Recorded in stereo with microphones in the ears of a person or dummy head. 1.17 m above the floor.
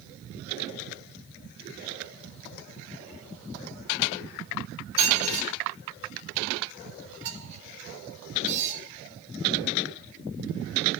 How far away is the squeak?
About 0.7 m.